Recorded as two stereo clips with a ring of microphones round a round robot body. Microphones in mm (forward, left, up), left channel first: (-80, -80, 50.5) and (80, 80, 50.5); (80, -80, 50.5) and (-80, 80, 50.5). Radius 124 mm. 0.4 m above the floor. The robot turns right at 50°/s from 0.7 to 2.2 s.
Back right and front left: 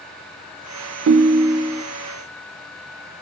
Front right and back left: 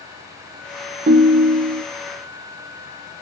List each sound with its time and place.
1.1 s a ringtone: 80° left, 0.6 m; by 1.8 s 120° left, 0.6 m